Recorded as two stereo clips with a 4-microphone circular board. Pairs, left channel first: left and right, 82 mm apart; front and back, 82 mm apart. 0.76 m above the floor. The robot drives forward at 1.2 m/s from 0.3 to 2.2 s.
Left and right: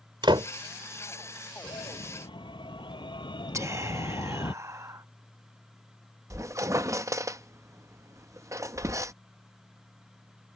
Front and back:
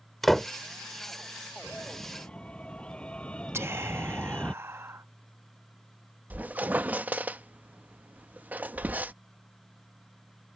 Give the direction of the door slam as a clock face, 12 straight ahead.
3 o'clock.